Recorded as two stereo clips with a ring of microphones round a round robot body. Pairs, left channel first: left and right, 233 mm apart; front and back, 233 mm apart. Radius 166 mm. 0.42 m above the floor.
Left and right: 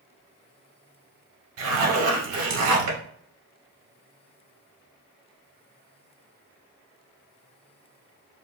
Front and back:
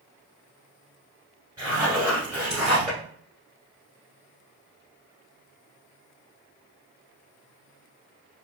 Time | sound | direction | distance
1.6 | a zipper | 100° right | 1.0 m